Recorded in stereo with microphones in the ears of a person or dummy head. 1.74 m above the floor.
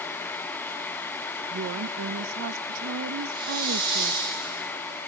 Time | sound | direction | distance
1.5 | a woman speaking | 65° right (ahead or behind) | 0.8 m
3.3 | a hiss | 25° right (ahead or behind) | 8 m